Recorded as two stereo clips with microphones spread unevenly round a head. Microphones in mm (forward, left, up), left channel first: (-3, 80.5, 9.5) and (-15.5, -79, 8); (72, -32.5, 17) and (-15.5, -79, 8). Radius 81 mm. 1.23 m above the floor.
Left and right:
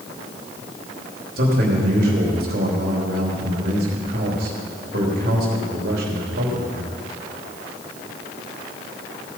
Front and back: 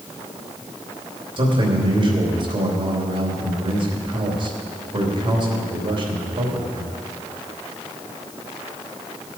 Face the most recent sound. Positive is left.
turn(degrees=-120)